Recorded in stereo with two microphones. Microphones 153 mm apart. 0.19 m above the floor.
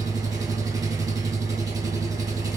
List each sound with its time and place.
0.0 s an engine running: 25° right (ahead or behind), 1.0 m